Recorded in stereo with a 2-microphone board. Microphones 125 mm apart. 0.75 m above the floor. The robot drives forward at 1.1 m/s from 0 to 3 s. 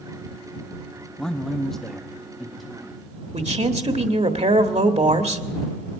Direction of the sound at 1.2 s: 5° left (ahead or behind).